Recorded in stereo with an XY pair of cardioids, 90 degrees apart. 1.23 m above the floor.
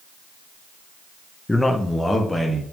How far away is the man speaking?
About 1.0 m.